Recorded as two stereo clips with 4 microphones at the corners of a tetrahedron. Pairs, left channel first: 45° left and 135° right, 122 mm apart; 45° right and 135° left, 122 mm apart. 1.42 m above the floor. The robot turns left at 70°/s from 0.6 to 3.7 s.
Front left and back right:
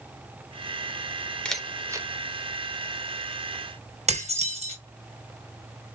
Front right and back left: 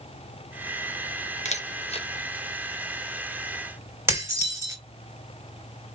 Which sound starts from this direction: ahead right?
A camera shutter, at 1.4 s.